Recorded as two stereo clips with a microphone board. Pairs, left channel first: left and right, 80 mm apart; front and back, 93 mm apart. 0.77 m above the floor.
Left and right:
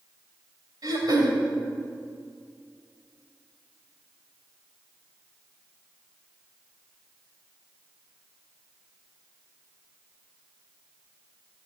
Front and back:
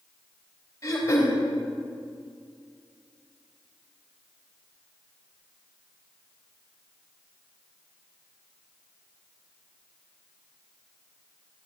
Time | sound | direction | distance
0.8 | throat clearing | 55° right | 3 m